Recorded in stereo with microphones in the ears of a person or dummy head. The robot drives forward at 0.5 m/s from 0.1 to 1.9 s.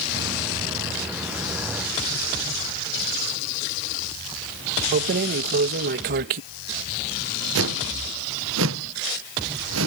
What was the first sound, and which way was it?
Keys jangling, 45° right (ahead or behind).